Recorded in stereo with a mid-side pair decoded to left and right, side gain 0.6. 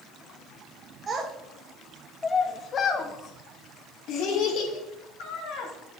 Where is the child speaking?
35° right, 1.2 m; by 5.7 s 75° left, 3.5 m.